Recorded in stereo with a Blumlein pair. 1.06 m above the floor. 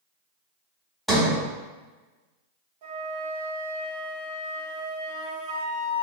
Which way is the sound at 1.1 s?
5° right.